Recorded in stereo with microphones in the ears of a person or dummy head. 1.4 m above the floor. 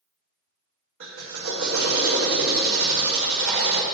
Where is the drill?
75° right (ahead or behind), 0.8 m.